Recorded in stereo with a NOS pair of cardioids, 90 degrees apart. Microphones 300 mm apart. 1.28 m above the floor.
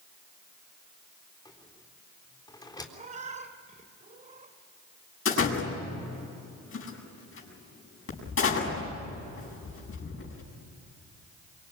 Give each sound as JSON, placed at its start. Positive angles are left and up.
{"t": 1.4, "sound": "a rattle", "azimuth_deg": 15, "distance_m": 3.5}
{"t": 2.9, "sound": "a cat meowing", "azimuth_deg": -25, "distance_m": 2.5}
{"t": 5.2, "sound": "a door slam", "azimuth_deg": 45, "distance_m": 7.5}